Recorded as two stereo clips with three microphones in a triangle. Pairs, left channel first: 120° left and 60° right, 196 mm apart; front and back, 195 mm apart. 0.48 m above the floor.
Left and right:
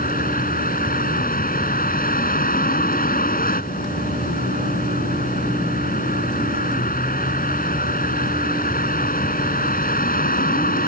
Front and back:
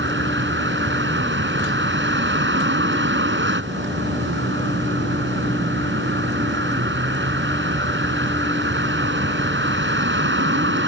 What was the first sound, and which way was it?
A vehicle, 165° left.